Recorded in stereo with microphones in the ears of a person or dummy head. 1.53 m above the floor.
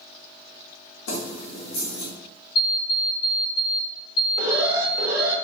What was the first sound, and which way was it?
Keys jangling, 70° left (ahead or behind).